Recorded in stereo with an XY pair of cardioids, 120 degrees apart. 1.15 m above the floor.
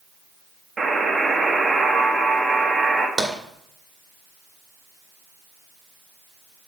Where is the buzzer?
25° right, 1.3 m.